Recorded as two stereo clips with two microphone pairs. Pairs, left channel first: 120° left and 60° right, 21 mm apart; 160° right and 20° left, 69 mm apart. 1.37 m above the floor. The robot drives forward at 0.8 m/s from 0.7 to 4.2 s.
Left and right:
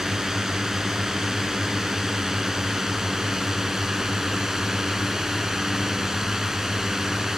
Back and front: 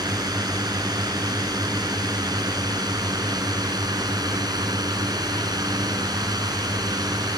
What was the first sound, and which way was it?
A drone, 5° left.